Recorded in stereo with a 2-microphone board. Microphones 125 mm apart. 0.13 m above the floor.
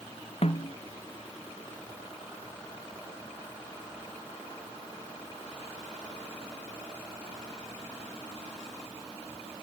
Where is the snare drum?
55° left (ahead or behind).